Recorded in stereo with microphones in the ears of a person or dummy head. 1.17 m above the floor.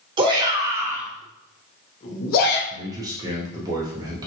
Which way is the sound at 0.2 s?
30° right (ahead or behind).